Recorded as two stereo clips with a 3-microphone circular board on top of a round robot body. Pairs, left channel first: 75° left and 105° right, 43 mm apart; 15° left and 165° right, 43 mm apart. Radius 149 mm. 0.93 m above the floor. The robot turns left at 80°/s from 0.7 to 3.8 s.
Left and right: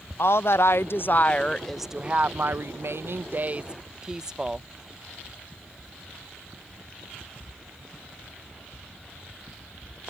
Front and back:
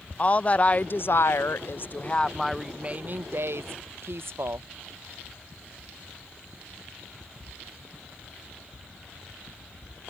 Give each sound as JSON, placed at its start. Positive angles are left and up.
{"t": 0.2, "sound": "a woman speaking", "azimuth_deg": 70}